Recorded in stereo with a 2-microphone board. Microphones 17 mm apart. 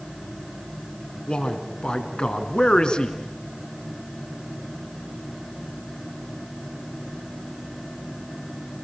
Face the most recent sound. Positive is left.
turn(degrees=55)  # may be behind; listen again after turning